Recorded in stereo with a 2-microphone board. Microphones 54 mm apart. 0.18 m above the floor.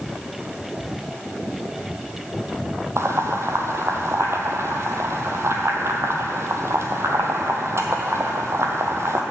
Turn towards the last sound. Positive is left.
turn(degrees=-55)  # may be behind; listen again after turning